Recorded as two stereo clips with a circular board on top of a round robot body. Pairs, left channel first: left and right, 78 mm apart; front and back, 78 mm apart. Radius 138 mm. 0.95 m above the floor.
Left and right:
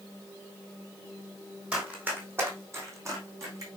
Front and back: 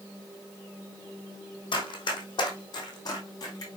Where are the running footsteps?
15° right, 2.5 m; by 3.7 s 45° right, 3.5 m.